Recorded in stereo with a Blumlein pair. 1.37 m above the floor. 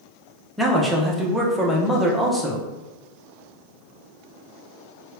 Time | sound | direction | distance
0.6 | a man speaking | 5° right | 0.7 m